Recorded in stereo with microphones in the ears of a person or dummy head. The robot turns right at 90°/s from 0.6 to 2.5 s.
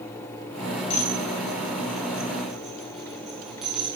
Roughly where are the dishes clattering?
Left.